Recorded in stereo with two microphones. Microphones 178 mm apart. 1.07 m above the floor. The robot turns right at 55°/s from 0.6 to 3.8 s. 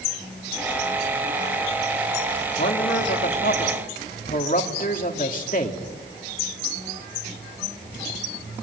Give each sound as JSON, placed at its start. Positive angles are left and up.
{"t": 2.6, "sound": "a man speaking", "azimuth_deg": 65, "distance_m": 2.5}